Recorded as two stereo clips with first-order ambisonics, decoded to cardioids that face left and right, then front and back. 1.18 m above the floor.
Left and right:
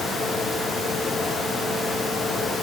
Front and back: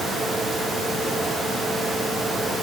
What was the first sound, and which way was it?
Only background noise.